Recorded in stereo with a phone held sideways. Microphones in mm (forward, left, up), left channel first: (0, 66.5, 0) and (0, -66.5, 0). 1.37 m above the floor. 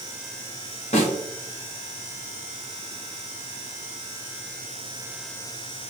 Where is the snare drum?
55° left (ahead or behind), 1.2 m.